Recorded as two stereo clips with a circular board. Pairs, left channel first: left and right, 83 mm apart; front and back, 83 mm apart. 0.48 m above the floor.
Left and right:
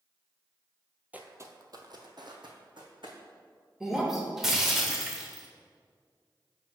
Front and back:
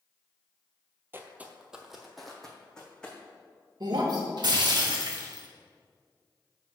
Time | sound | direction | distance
1.1 | footsteps | 150° right | 0.5 m
3.8 | breaking glass | 175° right | 0.9 m